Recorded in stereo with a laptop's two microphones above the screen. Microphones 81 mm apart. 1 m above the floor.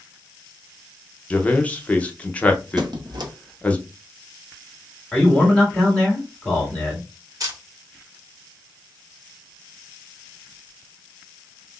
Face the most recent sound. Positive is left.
turn(degrees=-45)  # may be behind; listen again after turning